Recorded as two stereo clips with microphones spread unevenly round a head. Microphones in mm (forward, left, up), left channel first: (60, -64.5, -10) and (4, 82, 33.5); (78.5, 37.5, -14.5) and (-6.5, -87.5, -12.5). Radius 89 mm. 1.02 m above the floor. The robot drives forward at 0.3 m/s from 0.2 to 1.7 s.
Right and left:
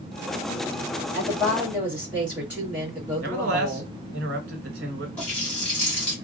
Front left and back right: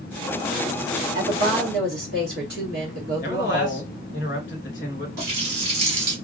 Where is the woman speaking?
160° right, 2 m.